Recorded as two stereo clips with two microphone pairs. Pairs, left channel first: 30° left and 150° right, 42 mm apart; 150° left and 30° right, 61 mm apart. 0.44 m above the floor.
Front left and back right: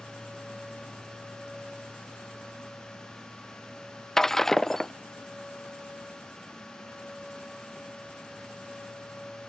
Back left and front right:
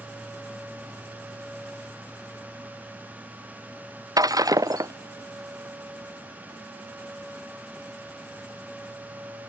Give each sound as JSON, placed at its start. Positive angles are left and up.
{"t": 4.2, "sound": "breaking glass", "azimuth_deg": -50}